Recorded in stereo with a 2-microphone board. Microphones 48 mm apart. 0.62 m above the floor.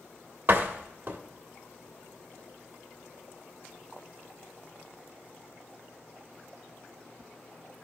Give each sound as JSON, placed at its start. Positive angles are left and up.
{"t": 0.5, "sound": "a door slam", "side_deg": -40, "distance_m": 1.6}